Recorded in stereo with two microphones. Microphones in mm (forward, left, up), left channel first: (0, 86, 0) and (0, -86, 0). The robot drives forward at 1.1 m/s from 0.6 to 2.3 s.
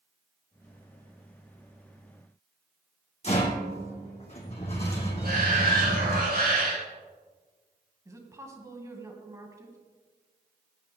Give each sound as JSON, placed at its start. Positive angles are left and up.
{"t": 3.2, "sound": "a rattle", "side_deg": 40, "distance_m": 3.0}
{"t": 5.2, "sound": "a shout", "side_deg": -65, "distance_m": 5.0}
{"t": 8.1, "sound": "a woman speaking", "side_deg": -20, "distance_m": 2.0}